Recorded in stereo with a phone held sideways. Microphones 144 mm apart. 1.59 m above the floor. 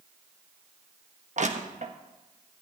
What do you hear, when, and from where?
1.4 s crushing: 55° right (ahead or behind), 1.3 m